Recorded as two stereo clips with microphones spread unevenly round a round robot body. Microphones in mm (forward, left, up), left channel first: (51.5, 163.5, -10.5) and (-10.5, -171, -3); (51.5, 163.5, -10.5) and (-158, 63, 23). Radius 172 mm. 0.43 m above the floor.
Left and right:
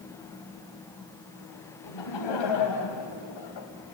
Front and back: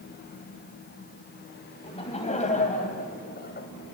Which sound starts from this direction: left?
Laughter, at 1.8 s.